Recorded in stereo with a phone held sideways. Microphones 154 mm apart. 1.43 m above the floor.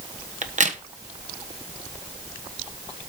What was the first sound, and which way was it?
A crack, 50° right (ahead or behind).